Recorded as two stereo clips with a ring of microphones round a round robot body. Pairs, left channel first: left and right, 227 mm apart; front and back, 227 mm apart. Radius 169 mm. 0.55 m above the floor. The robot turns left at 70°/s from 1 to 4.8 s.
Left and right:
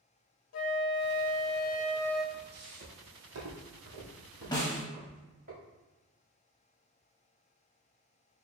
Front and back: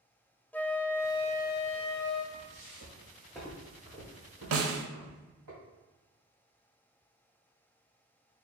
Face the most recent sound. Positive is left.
turn(degrees=150)